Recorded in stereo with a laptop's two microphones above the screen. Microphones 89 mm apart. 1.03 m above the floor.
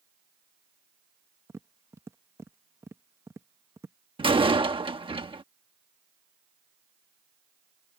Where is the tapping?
30° right (ahead or behind).